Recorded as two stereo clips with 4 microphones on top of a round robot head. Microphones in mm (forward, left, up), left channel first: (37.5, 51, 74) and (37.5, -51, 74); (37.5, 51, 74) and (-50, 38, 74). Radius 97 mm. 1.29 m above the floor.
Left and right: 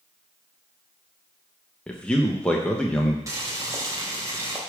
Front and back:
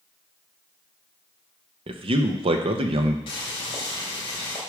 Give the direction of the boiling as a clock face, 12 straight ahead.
1 o'clock.